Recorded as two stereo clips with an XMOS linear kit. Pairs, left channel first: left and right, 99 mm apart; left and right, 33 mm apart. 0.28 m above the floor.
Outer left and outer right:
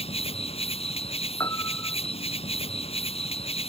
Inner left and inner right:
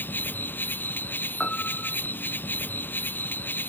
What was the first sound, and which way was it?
An insect, 80° left.